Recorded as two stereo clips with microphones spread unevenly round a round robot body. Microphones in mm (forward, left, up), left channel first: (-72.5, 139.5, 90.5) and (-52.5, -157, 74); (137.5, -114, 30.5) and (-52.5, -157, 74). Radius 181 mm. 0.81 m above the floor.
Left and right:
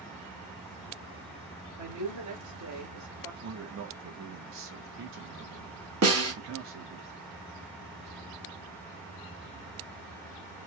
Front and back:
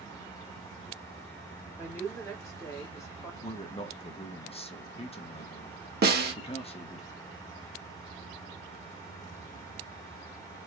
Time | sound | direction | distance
1.8 | a woman speaking | 60° right | 2 m
3.4 | a man speaking | 45° right | 0.8 m
6.0 | a snare drum | 125° right | 1.5 m